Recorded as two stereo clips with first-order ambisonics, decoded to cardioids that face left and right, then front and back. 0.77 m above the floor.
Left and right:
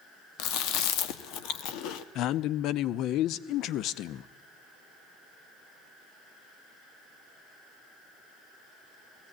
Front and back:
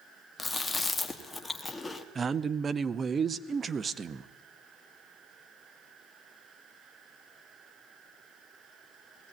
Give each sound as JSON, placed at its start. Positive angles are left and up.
{"t": 0.4, "sound": "chewing", "azimuth_deg": 75, "distance_m": 1.1}
{"t": 2.1, "sound": "a man speaking", "azimuth_deg": 115, "distance_m": 0.5}